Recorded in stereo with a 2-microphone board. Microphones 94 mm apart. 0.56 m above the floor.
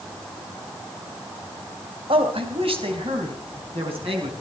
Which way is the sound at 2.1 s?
75° right (ahead or behind).